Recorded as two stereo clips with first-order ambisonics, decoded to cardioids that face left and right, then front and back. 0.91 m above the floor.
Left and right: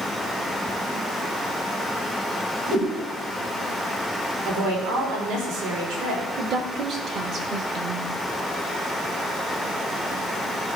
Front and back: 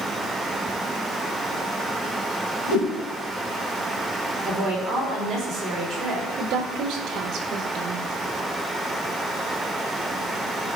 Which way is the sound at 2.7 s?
35° right.